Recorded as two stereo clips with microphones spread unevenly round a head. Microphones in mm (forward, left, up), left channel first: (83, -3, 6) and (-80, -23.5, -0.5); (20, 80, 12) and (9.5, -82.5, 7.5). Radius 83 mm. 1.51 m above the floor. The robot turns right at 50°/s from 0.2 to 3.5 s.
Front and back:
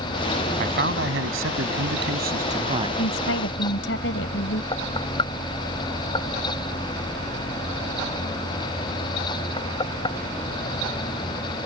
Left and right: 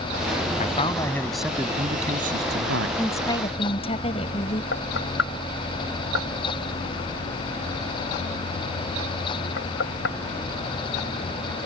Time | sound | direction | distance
0.6 | a man speaking | 140° left | ?
3.0 | a woman speaking | 5° left | ?
4.7 | knocking | 70° left | ?